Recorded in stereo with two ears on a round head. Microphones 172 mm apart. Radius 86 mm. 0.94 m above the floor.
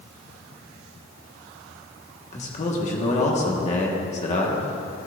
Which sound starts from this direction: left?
A man speaking, at 2.3 s.